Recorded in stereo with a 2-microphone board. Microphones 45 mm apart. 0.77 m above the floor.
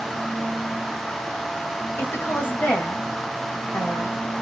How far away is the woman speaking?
About 0.8 m.